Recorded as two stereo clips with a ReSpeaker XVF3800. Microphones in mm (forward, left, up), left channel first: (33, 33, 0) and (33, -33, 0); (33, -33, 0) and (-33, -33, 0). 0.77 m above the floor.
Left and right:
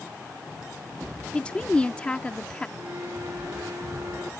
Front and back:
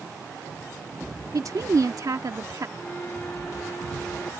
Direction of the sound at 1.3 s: 160° left.